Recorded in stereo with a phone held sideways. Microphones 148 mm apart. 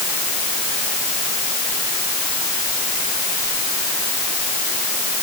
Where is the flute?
I don't hear a flute.